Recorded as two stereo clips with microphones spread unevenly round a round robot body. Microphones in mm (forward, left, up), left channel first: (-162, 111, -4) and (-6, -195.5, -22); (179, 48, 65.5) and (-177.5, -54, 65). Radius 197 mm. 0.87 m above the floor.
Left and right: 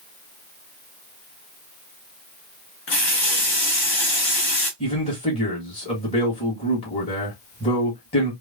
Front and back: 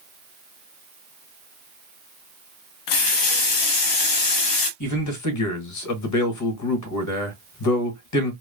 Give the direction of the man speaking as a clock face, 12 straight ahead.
11 o'clock.